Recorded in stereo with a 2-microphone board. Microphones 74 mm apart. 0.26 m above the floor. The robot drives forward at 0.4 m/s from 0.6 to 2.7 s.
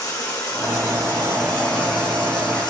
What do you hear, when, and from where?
0.0 s running water: 60° left (ahead or behind), 1.7 m; by 2.7 s 85° left, 1.5 m